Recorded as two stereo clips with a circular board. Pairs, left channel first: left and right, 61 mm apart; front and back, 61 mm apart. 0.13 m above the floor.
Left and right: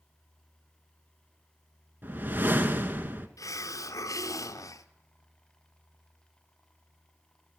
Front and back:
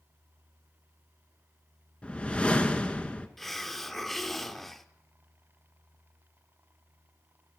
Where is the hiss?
85° left, 0.5 m.